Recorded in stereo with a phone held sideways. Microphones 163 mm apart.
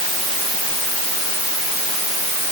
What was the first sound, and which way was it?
Only background noise.